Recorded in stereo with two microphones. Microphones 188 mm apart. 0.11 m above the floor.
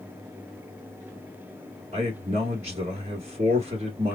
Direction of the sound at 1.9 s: 40° right (ahead or behind).